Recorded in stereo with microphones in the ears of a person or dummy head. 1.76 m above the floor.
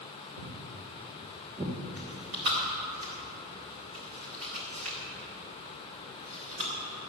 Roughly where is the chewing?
Right.